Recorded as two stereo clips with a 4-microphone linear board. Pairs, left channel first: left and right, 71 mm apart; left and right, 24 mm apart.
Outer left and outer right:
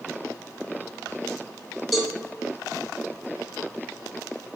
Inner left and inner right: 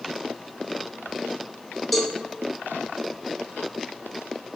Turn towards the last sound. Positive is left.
turn(degrees=0)  # may be behind; listen again after turning